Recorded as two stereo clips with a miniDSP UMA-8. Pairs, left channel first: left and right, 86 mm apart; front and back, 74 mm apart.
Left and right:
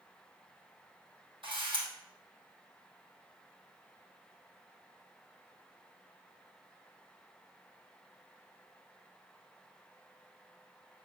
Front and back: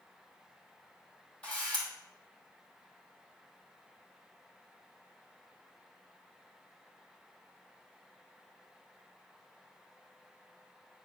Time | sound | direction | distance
1.4 | a camera shutter | 75° right | 2.5 m